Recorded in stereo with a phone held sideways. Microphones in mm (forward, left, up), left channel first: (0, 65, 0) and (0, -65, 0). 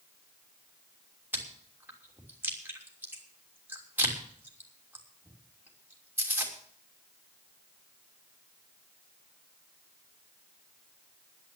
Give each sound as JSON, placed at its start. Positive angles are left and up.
{"t": 1.3, "sound": "chewing", "side_deg": -15, "distance_m": 3.0}